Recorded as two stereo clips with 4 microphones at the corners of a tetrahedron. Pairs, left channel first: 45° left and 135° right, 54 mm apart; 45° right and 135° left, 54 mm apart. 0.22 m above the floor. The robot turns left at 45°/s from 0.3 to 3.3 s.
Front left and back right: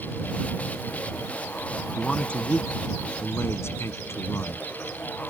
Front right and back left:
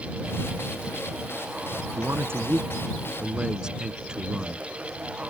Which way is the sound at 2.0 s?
125° left.